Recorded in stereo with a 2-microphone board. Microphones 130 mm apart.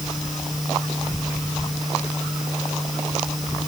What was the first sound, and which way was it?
Only background noise.